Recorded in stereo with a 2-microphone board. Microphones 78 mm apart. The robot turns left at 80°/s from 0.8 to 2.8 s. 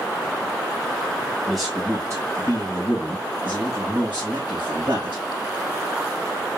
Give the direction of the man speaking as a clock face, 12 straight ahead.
12 o'clock.